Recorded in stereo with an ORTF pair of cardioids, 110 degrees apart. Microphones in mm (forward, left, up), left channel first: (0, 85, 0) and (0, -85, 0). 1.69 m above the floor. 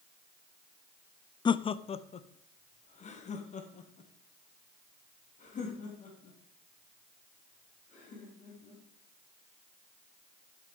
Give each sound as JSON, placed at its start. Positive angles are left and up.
{"t": 1.4, "sound": "laughter", "azimuth_deg": 25, "distance_m": 0.5}